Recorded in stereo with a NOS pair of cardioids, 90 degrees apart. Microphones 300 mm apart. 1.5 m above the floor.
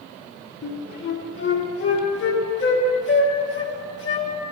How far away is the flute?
About 1.7 m.